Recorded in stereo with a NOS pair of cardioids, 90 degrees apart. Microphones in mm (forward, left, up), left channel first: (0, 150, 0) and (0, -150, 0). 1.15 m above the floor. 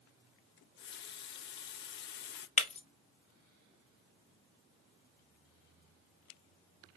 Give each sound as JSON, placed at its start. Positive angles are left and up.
{"t": 0.6, "sound": "a running tap", "azimuth_deg": 40, "distance_m": 0.5}
{"t": 2.6, "sound": "breaking glass", "azimuth_deg": 20, "distance_m": 1.0}